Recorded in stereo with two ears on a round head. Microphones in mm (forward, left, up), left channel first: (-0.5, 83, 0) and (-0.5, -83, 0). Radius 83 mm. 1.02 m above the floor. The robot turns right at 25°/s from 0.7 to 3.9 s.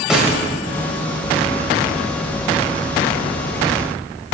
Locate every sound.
0.1 s a snare drum: 5° right (ahead or behind), 3 m